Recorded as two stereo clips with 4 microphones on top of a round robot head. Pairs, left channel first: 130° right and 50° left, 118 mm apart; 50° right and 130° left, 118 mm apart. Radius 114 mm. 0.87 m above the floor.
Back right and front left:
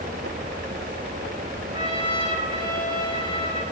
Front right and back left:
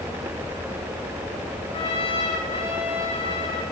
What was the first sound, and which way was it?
A trumpet, 5° right.